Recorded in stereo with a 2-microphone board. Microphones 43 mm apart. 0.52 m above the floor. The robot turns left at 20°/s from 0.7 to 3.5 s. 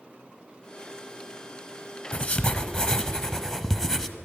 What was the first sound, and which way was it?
Writing, 40° left (ahead or behind).